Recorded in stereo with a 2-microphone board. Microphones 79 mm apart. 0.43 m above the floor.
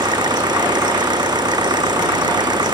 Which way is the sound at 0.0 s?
65° right (ahead or behind).